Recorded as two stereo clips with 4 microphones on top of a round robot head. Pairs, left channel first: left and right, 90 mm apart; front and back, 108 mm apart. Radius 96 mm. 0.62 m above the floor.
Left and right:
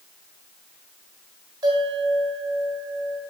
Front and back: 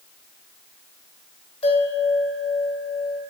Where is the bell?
40° right, 2 m.